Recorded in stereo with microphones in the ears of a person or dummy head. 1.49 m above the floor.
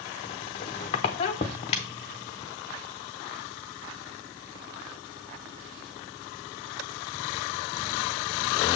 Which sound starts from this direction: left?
A squeak, at 0.2 s.